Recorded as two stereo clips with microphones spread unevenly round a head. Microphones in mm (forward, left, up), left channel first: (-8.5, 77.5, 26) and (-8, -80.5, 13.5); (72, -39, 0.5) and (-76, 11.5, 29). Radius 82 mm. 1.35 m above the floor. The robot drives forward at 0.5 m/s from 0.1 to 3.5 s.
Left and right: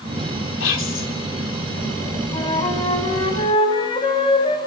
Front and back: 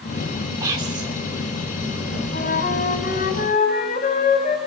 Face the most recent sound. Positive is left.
turn(degrees=30)